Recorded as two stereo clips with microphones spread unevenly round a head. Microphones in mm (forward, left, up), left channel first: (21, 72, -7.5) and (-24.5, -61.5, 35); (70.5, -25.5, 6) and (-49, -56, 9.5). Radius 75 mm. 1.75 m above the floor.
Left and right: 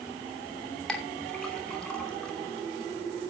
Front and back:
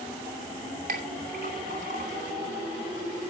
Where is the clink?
165° left, 2.5 m.